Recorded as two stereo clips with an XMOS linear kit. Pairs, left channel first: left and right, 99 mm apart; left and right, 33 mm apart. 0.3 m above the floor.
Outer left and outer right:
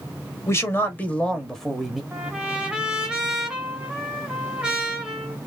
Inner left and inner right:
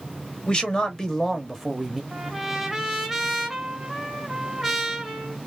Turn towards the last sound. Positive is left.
turn(degrees=-10)  # may be behind; listen again after turning